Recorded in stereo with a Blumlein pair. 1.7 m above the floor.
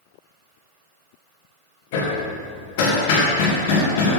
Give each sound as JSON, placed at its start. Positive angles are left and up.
{"t": 1.9, "sound": "hammering", "azimuth_deg": 50, "distance_m": 1.8}